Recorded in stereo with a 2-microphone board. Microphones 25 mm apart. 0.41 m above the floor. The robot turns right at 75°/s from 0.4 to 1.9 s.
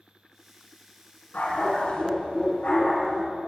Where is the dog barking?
75° left, 1.9 m; by 3.2 s 120° left, 1.9 m.